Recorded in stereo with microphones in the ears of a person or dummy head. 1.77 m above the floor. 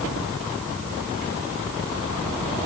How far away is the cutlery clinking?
No cutlery clinking in this recording.